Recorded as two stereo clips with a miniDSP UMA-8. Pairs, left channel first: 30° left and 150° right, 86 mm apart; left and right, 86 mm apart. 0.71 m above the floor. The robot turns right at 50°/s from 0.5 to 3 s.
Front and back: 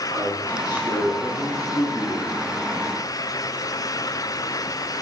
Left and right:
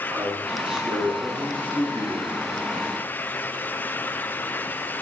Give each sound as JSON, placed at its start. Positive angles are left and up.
{"t": 0.1, "sound": "a man speaking", "azimuth_deg": -20, "distance_m": 9.5}